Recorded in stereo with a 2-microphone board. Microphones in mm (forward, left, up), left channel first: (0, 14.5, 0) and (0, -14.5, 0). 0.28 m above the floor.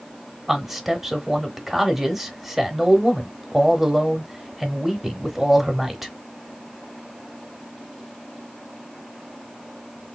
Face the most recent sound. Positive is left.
turn(degrees=-10)  # may be behind; listen again after turning